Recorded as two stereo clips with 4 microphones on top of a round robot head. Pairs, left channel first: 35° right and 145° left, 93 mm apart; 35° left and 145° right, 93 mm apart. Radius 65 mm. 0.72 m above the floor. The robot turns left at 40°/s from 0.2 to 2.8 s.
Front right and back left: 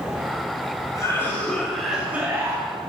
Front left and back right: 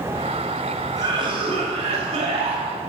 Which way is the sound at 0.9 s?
90° right.